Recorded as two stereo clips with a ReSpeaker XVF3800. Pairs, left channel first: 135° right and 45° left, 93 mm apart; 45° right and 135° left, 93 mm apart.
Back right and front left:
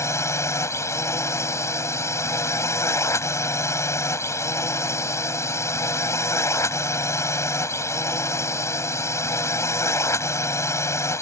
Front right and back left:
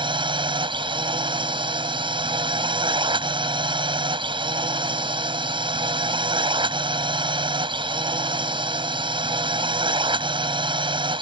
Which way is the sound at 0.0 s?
165° left.